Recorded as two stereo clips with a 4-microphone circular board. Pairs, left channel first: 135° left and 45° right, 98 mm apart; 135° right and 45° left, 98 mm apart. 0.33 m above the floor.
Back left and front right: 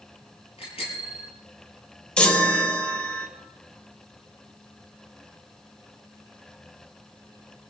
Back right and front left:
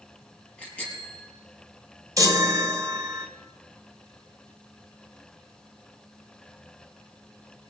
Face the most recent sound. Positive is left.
turn(degrees=60)